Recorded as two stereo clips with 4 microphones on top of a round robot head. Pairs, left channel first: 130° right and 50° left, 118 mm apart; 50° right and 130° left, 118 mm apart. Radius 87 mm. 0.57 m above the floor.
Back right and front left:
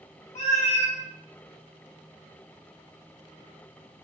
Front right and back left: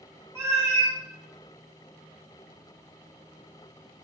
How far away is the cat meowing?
About 0.9 m.